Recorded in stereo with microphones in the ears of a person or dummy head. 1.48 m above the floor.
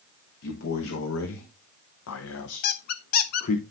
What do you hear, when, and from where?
0.4 s a man speaking: 65° left (ahead or behind), 1.7 m; by 3.6 s 40° left (ahead or behind), 1.1 m
2.6 s a squeak: 50° left (ahead or behind), 0.8 m